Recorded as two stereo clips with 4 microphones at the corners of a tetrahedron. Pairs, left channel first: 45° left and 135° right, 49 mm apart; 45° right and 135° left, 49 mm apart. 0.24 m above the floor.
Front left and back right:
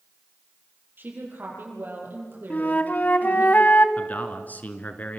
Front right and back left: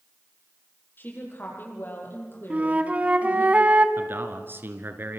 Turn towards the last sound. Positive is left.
turn(degrees=100)